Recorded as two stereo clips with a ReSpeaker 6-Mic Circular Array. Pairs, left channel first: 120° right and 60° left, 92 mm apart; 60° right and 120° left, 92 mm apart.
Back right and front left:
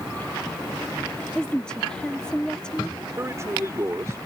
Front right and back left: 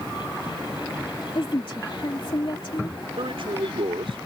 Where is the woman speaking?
40° right.